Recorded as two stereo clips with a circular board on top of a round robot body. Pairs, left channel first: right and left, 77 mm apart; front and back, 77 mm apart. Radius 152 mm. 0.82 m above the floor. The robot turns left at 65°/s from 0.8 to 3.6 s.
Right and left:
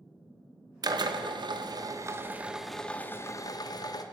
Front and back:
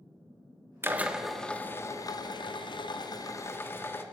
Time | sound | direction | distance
0.8 | a drill | 120° left | 1.9 m